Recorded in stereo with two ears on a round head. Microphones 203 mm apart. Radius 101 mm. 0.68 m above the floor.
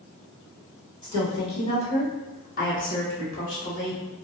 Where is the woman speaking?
20° left (ahead or behind), 1.7 m; by 4.0 s 40° left (ahead or behind), 1.4 m.